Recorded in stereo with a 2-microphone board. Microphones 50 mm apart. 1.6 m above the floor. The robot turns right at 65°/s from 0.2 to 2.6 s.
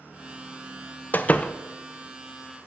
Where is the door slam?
35° left (ahead or behind), 0.6 m; by 1.5 s 20° left (ahead or behind), 0.6 m.